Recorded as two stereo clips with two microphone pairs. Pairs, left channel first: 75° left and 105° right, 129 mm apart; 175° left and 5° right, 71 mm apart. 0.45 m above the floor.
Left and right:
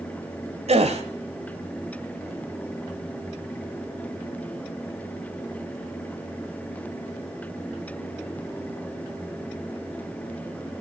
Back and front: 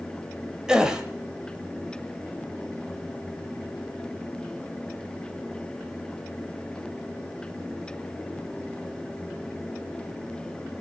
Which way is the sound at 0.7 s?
80° right.